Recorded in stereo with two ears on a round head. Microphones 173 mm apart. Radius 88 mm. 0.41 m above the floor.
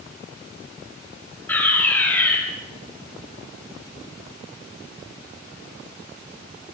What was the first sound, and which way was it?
A fire alarm, 10° left (ahead or behind).